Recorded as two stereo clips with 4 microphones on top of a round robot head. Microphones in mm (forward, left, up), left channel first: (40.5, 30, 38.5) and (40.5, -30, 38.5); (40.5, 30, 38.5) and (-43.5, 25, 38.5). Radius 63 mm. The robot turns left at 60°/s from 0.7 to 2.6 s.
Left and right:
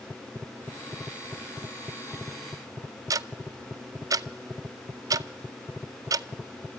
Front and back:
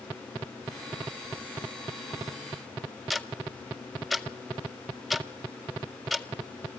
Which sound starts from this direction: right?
Ticking, at 3.1 s.